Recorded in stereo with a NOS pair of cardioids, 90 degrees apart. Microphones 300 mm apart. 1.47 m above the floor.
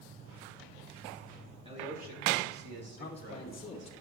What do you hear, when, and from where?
1.6 s a man speaking: 20° right, 2.5 m; by 3.9 s 75° right, 4 m
3.0 s a man speaking: 20° left, 1.1 m